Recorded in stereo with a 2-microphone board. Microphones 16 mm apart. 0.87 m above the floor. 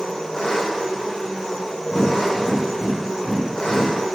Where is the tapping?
40° left (ahead or behind), 1.8 m.